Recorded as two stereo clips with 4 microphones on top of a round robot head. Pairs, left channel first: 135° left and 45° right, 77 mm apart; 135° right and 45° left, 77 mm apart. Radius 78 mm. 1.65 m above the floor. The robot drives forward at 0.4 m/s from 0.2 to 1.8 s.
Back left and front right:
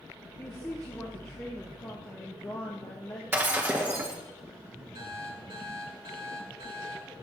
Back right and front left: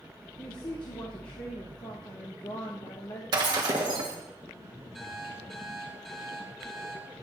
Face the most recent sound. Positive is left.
turn(degrees=-45)